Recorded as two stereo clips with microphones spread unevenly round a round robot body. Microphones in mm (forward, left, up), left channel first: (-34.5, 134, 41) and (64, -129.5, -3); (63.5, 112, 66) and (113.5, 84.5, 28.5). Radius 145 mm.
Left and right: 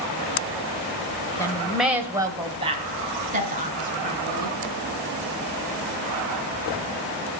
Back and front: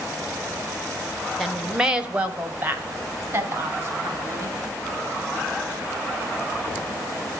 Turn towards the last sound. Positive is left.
turn(degrees=-15)